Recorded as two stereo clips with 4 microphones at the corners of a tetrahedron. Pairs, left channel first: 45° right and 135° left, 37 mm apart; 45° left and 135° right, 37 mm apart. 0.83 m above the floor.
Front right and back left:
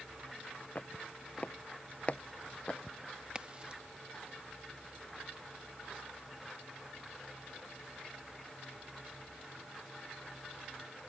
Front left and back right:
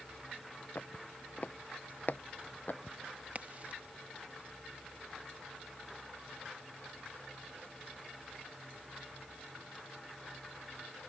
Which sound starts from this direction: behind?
A crack, at 3.4 s.